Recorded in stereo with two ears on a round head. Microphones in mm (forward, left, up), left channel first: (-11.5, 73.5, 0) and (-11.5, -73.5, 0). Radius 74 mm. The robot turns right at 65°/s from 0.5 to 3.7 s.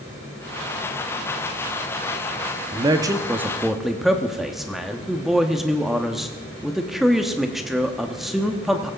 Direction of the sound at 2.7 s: 70° right.